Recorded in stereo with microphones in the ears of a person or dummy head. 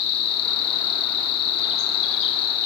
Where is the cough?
I don't hear a cough.